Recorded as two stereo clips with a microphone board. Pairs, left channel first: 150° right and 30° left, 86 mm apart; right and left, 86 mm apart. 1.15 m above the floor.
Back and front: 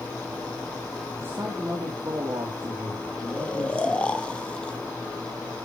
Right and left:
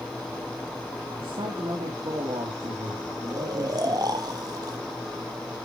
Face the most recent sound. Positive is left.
turn(degrees=135)